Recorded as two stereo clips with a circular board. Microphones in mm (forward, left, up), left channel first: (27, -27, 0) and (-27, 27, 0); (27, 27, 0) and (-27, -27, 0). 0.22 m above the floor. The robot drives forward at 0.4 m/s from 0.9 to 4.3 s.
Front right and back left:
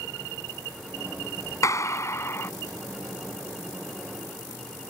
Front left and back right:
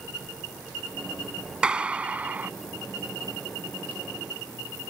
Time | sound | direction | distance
1.6 | a clap | 60° right | ?